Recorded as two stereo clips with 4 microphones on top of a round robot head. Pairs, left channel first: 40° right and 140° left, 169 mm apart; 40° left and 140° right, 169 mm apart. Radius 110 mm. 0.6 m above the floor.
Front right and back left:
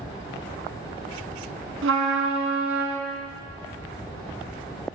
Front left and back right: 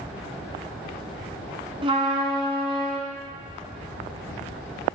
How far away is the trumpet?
About 1.0 m.